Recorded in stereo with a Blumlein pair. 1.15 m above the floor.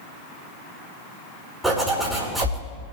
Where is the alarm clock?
I don't hear an alarm clock.